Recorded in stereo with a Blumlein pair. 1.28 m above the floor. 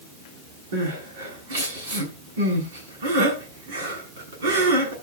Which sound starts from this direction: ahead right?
Crying, at 0.7 s.